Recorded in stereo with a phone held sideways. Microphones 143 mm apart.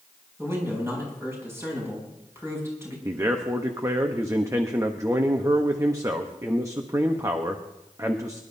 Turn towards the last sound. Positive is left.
turn(degrees=-20)  # may be behind; listen again after turning